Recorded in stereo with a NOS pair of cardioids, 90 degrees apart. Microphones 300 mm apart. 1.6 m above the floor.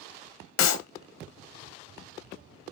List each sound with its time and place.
0.6 s a clap: 60° left, 0.9 m